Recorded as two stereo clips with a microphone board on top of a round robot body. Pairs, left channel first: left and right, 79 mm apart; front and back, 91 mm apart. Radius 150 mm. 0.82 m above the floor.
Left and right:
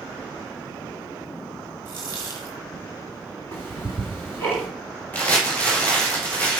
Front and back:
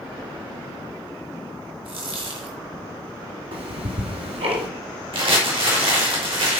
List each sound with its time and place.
1.9 s a dropped coin: 150° right, 1.1 m
3.5 s ticking: 155° left, 1.8 m
5.1 s crumpling: 160° left, 4 m